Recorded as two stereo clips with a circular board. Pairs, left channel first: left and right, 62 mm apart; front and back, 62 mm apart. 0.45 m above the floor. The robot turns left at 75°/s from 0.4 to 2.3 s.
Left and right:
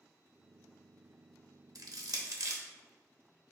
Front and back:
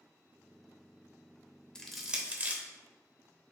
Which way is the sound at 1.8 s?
75° right.